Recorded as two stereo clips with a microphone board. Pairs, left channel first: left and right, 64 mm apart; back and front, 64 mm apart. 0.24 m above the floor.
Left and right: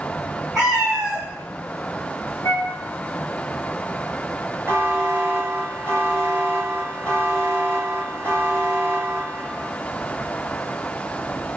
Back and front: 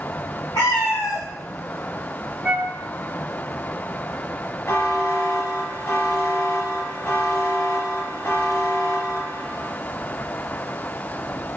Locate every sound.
0.6 s a cat meowing: 170° right, 4 m
2.4 s a flute: 80° left, 2 m
4.7 s a buzzer: 140° right, 3 m